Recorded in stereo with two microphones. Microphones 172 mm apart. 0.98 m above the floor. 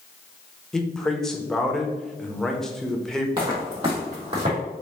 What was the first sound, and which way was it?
A man speaking, 5° left (ahead or behind).